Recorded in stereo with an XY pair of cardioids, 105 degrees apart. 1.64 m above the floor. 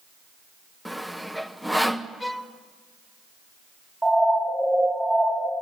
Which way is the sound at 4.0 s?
5° right.